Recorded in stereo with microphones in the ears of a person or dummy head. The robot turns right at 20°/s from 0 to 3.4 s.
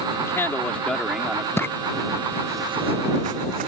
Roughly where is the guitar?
I don't hear a guitar.